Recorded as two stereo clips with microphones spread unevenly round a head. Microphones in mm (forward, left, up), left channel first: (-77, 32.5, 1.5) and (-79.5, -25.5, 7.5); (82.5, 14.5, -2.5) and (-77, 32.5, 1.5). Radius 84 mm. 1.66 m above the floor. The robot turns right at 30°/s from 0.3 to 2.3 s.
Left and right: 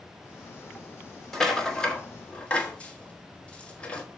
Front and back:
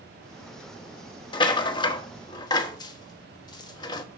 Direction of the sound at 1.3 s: 5° right.